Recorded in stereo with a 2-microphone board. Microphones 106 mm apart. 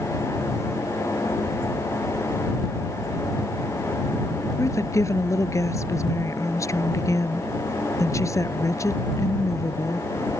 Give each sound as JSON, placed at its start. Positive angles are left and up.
{"t": 4.6, "sound": "a woman speaking", "side_deg": 30}